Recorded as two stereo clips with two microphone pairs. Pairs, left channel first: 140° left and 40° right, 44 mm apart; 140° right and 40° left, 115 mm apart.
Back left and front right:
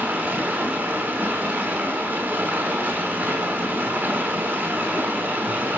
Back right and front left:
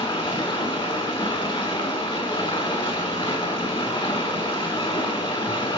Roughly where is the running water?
Right.